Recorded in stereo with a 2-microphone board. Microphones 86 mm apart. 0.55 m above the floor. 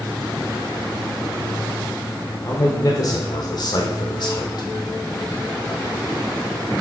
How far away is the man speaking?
About 1.7 m.